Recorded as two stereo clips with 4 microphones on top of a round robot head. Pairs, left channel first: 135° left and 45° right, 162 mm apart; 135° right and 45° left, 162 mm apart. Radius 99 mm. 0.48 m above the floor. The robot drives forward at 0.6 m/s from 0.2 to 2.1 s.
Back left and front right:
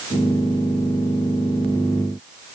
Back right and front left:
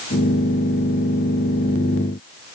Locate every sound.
Only background noise.